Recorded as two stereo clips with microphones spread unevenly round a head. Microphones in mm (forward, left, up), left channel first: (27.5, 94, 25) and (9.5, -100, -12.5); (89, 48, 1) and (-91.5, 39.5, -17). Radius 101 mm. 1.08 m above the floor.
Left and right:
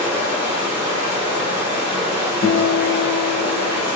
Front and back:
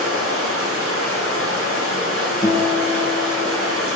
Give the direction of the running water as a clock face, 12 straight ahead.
6 o'clock.